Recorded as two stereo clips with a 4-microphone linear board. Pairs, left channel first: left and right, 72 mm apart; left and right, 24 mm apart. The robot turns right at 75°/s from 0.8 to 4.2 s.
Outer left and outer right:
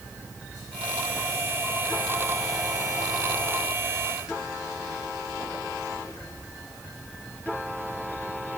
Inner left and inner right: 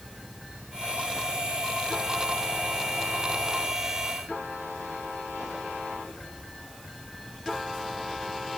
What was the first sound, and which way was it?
Only background noise.